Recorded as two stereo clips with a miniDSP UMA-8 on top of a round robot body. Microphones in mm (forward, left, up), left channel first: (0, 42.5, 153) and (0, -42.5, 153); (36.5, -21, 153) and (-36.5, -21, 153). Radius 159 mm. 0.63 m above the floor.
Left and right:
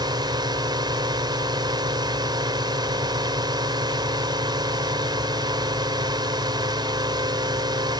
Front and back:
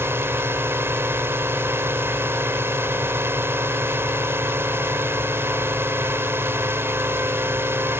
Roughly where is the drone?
Behind right.